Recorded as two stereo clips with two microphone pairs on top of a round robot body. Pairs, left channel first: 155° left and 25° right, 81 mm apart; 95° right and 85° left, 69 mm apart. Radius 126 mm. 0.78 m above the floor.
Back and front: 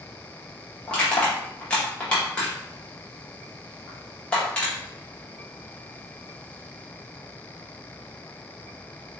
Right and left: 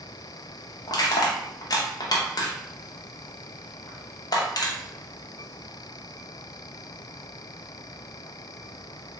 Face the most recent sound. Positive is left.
turn(degrees=-130)